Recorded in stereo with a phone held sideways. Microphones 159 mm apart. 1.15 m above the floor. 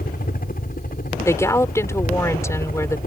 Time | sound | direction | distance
0.0 | a helicopter | 65° left (ahead or behind) | ?
1.2 | a woman speaking | 20° left (ahead or behind) | ?